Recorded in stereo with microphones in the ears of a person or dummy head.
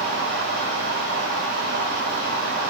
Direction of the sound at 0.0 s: 55° right (ahead or behind).